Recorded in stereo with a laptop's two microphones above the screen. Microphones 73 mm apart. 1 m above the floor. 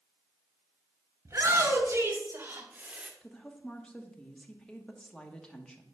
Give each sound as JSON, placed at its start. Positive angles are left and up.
{"t": 1.2, "sound": "a shout", "side_deg": -40, "distance_m": 2.5}
{"t": 3.2, "sound": "a woman speaking", "side_deg": 10, "distance_m": 0.9}